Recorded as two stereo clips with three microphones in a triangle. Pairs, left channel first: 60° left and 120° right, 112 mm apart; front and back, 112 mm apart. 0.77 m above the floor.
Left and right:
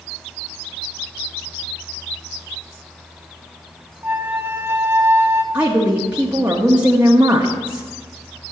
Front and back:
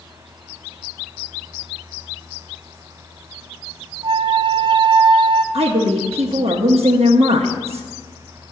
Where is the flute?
Straight behind, 0.6 m.